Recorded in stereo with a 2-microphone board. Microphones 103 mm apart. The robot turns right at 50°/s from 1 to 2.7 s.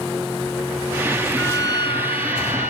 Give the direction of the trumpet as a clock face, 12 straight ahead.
11 o'clock.